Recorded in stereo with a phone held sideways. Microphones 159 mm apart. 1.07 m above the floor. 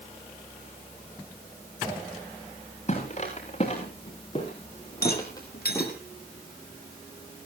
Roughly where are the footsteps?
Left.